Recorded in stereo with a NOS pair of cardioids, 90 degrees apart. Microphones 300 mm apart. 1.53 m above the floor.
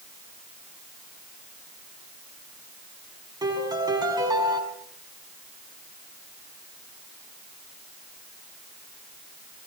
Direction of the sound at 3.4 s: 15° right.